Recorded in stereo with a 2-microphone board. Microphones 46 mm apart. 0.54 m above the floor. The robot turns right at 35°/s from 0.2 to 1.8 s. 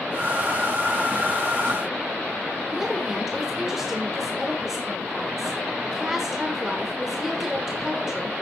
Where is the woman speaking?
10° right (ahead or behind), 1.5 m.